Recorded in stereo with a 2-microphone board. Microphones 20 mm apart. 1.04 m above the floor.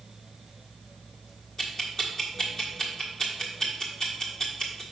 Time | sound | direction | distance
1.6 | ticking | 30° left (ahead or behind) | 1.3 m